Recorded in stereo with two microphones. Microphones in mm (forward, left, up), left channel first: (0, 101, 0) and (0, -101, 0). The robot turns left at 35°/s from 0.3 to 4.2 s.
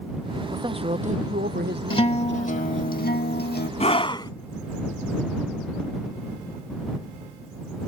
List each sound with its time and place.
0.5 s a man speaking: 20° right; by 2.9 s 105° right
1.9 s a guitar: 145° left; by 3.7 s 85° left
3.8 s a scream: 35° left (ahead or behind); by 4.3 s 20° left (ahead or behind)